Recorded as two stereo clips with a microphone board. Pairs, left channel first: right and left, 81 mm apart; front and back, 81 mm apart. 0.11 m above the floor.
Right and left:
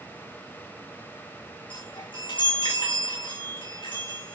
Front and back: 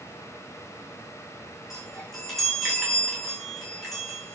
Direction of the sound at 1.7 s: 90° right.